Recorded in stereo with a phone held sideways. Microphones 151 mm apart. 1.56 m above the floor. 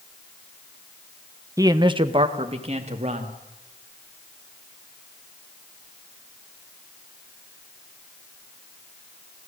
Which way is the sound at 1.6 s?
20° right (ahead or behind).